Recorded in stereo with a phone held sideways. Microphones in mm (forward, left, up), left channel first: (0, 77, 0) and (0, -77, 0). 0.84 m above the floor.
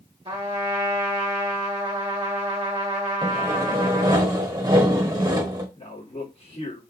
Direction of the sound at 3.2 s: 25° right (ahead or behind).